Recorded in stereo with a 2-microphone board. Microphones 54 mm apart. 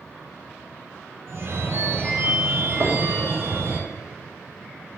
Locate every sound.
1.3 s a phone ringing: 45° right (ahead or behind), 1.8 m
2.8 s knocking: 70° right (ahead or behind), 2.5 m